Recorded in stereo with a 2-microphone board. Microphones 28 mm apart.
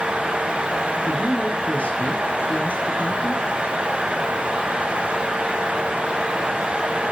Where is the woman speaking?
55° left (ahead or behind), 4.5 m.